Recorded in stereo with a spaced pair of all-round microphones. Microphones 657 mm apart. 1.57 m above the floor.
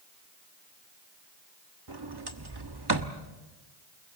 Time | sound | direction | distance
1.9 | a sliding door | 35° right (ahead or behind) | 1.3 m